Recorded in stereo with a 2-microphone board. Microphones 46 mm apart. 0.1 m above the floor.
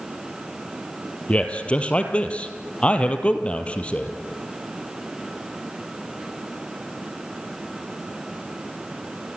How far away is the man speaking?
About 2.5 m.